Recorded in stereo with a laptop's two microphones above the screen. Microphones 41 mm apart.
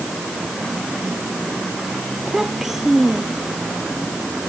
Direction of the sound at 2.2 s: 5° right (ahead or behind).